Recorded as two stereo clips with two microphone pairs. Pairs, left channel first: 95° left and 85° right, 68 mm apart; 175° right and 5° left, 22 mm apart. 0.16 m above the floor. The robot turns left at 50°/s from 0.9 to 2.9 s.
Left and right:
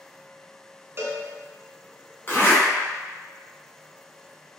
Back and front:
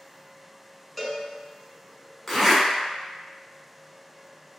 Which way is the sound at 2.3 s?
120° left.